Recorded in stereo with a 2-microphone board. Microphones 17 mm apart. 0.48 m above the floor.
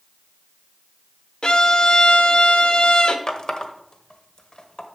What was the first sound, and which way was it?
A violin, 50° left (ahead or behind).